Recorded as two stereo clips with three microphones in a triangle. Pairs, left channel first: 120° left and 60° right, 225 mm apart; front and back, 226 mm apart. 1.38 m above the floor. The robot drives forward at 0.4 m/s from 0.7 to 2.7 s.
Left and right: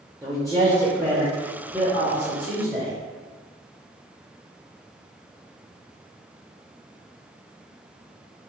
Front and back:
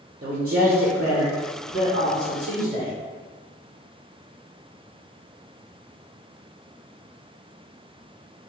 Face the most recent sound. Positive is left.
turn(degrees=-160)